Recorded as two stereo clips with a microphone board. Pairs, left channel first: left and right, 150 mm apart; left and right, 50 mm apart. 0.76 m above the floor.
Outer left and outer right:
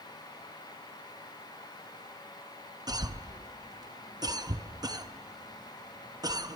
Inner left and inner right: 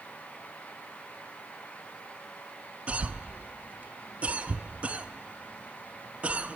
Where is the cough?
25° right (ahead or behind), 0.6 m.